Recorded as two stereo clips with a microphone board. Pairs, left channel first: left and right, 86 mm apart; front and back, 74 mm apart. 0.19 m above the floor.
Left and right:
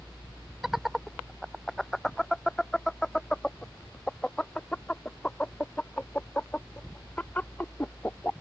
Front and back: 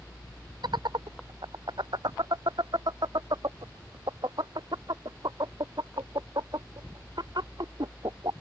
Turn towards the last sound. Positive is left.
turn(degrees=160)